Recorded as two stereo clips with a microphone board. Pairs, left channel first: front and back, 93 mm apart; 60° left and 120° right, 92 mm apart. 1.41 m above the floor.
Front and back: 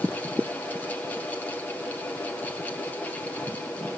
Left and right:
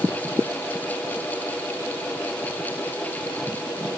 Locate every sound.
Only background noise.